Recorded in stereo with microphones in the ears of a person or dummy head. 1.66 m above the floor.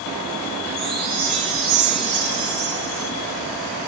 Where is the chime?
Centre (ahead or behind), 7 m.